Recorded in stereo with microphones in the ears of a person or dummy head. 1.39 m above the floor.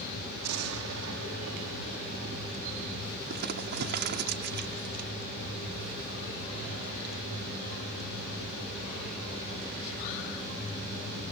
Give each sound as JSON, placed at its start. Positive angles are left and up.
{"t": 0.4, "sound": "an explosion", "side_deg": -85}
{"t": 3.3, "sound": "crumpling", "side_deg": -60}